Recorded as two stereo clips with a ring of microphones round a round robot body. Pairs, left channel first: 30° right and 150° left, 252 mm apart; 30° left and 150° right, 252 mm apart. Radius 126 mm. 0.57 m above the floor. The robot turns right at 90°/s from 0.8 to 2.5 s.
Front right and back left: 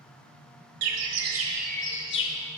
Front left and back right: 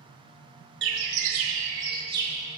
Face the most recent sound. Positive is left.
turn(degrees=-45)